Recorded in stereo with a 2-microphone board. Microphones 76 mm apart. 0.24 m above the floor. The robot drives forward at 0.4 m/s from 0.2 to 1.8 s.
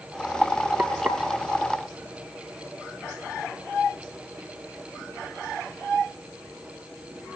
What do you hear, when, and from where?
0.8 s frying: 25° right (ahead or behind), 3 m